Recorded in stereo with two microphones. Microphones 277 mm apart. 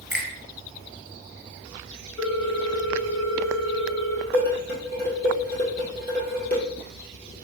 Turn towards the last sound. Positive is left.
turn(degrees=35)  # may be behind; listen again after turning